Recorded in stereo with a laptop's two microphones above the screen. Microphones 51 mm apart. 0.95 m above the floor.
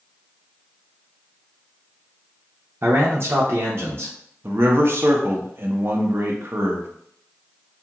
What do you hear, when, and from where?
2.8 s a man speaking: 50° right (ahead or behind), 0.6 m
4.4 s a man speaking: 50° right (ahead or behind), 0.6 m